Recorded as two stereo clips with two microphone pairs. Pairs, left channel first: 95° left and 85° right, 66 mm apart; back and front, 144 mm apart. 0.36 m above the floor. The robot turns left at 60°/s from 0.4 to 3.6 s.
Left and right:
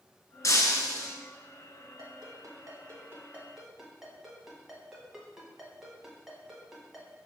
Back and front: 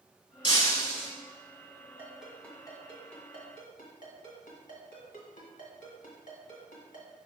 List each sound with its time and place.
0.4 s breaking glass: 130° left, 1.6 m; by 1.1 s 90° left, 1.6 m
2.0 s a ringtone: 70° right, 1.7 m; by 7.1 s 165° right, 1.7 m